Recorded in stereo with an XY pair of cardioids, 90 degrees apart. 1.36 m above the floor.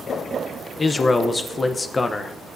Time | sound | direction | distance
0.8 | a man speaking | 35° left | 0.8 m